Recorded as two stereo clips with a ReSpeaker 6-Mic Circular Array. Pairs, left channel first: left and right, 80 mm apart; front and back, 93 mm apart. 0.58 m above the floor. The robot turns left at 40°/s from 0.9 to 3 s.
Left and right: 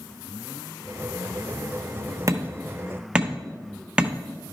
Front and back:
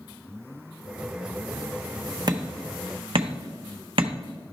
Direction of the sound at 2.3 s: 140° right.